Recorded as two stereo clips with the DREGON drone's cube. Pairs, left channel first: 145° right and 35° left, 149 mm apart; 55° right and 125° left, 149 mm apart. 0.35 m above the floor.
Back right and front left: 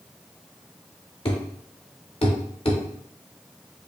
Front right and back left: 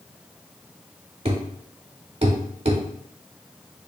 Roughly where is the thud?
Behind.